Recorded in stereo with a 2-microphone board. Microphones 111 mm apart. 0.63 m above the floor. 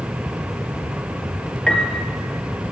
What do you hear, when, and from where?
1.7 s a piano: 5° left (ahead or behind), 2 m